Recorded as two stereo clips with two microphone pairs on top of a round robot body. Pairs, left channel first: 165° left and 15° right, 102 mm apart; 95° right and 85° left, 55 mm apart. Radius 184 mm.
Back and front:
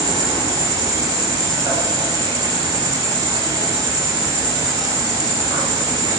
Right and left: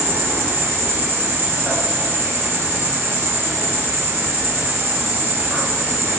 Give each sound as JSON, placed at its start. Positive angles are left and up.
{"t": 0.0, "sound": "an insect", "azimuth_deg": 35, "distance_m": 2.5}